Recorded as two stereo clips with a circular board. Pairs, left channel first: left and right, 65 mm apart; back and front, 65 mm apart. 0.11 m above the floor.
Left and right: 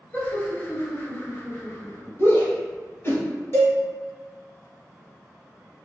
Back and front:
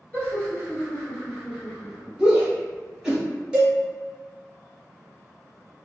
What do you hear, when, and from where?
0.1 s laughter: 135° left, 1.6 m; by 2.1 s 80° left, 1.8 m
2.2 s a shout: 75° left, 1.4 m
3.5 s a cowbell: 70° left, 2.0 m